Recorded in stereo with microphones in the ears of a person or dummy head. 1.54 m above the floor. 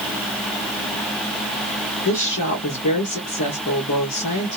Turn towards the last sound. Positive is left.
turn(degrees=50)  # may be behind; listen again after turning